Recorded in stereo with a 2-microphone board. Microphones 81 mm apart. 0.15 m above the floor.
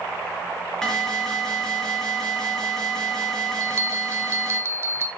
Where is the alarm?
5° left (ahead or behind), 2.5 m.